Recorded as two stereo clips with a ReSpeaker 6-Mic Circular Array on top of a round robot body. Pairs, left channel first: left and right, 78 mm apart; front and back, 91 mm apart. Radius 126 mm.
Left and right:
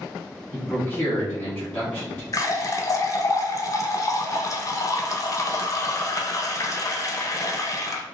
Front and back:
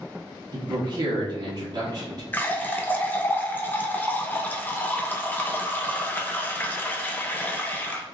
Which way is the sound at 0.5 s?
150° left.